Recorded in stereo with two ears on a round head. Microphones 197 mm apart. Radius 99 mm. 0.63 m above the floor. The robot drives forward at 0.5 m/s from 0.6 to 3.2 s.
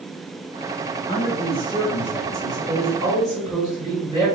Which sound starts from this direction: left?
A man speaking, at 1.1 s.